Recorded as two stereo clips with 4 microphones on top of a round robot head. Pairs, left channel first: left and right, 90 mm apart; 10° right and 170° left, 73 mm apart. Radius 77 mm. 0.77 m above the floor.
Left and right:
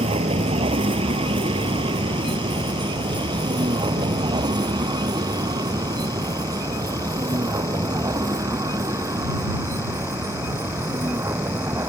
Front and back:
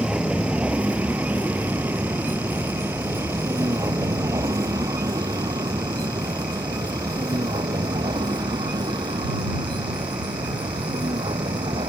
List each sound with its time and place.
0.0 s a vehicle: 105° right; by 11.9 s 150° right